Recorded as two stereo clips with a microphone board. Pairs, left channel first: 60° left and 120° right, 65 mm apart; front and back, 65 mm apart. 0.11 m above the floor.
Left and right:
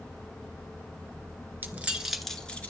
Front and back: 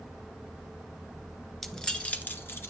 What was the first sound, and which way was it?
Keys jangling, 80° right.